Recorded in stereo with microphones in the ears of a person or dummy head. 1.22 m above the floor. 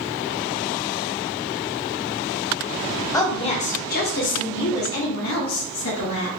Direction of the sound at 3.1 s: 25° left (ahead or behind).